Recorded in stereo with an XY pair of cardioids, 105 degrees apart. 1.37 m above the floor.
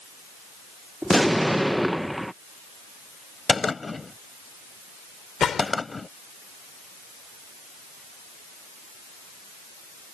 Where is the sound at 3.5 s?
25° left.